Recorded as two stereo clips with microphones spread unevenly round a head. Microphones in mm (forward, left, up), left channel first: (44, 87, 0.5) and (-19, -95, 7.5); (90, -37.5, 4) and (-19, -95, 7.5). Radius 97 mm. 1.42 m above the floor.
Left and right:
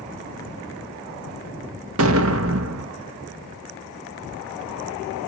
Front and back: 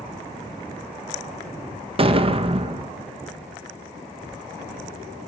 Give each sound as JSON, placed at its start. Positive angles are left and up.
{"t": 2.0, "sound": "an explosion", "azimuth_deg": -110, "distance_m": 1.1}